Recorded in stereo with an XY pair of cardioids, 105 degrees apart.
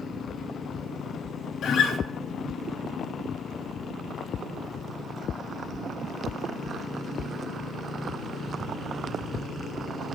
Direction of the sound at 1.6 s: 65° left.